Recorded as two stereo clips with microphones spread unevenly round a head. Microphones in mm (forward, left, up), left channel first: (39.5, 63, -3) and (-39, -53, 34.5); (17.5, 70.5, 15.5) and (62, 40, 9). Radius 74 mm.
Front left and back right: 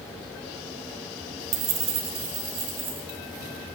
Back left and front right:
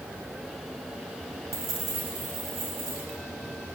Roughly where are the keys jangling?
Right.